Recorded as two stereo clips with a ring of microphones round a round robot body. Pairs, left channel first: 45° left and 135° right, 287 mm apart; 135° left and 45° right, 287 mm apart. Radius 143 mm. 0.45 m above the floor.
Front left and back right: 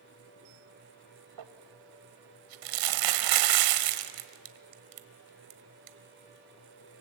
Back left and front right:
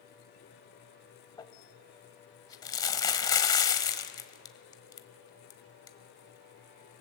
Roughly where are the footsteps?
I don't hear footsteps.